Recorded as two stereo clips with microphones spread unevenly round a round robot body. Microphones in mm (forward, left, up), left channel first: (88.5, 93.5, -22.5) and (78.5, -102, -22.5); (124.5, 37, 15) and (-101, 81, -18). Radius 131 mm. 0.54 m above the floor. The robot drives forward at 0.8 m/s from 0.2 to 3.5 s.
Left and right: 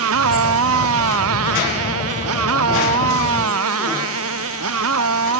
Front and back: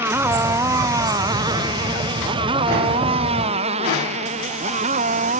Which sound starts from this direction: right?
A motorcycle, at 0.0 s.